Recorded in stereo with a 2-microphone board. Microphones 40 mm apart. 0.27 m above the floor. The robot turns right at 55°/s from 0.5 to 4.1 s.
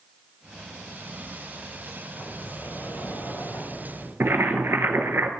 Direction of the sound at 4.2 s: 85° right.